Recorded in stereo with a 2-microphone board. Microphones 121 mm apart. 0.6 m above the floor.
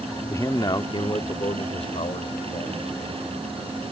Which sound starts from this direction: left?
A man speaking, at 0.3 s.